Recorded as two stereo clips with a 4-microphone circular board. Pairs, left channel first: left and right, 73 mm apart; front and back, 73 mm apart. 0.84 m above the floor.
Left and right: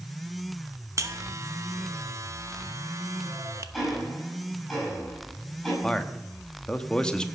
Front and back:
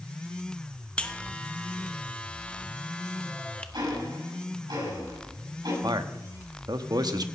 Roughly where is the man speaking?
Behind.